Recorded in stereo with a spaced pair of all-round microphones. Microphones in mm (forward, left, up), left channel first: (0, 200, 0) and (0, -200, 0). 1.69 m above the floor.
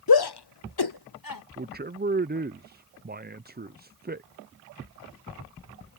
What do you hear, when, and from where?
0.1 s a shout: 60° left (ahead or behind); by 1.4 s 55° left (ahead or behind)
1.6 s a man speaking: 25° right (ahead or behind)